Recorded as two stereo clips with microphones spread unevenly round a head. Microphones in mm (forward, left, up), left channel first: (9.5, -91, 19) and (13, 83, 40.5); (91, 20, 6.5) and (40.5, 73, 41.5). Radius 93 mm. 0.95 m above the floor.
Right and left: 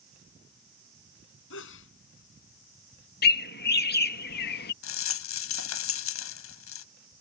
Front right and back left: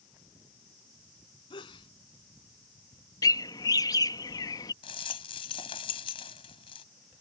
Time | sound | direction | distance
1.5 | a sneeze | 80° right | ?
3.2 | a bird | 70° right | ?
4.8 | a rattle | 95° right | ?